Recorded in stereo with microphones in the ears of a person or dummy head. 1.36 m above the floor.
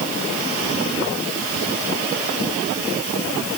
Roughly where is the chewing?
No chewing in this recording.